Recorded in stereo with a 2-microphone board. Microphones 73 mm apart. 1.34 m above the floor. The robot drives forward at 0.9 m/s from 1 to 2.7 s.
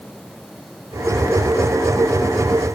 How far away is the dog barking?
I don't hear a dog barking.